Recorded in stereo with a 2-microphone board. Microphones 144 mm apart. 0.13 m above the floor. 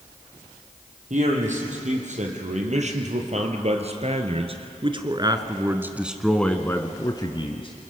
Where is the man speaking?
60° right (ahead or behind), 4 m; by 7.9 s 45° left (ahead or behind), 1.6 m.